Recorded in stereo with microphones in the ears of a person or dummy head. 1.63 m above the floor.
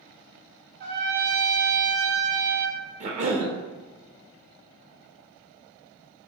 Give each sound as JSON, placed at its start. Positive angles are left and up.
{"t": 0.8, "sound": "a trumpet", "side_deg": -50, "distance_m": 0.5}
{"t": 3.0, "sound": "a cough", "side_deg": -40, "distance_m": 0.6}